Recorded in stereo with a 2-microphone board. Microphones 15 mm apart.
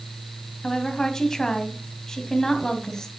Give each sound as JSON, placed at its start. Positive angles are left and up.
{"t": 0.6, "sound": "a woman speaking", "side_deg": 35, "distance_m": 2.0}